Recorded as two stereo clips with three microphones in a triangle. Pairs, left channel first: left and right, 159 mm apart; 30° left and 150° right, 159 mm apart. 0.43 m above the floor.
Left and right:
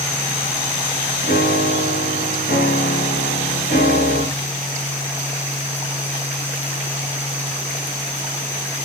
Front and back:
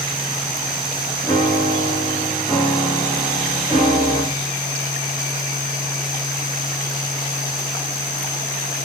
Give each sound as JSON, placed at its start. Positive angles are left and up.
{"t": 1.2, "sound": "a piano", "azimuth_deg": 95, "distance_m": 9.0}